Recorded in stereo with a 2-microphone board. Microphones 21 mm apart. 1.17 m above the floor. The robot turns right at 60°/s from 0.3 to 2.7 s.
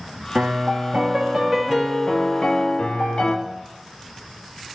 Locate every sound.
0.3 s a piano: 85° right, 1.3 m; by 3.4 s 55° left, 1.3 m